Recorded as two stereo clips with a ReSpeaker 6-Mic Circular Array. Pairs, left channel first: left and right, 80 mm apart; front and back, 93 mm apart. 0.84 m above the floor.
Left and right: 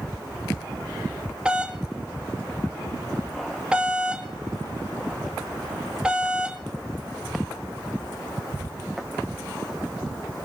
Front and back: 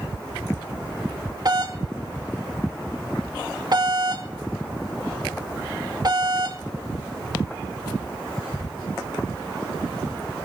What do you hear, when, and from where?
1.4 s a doorbell: 165° right, 2 m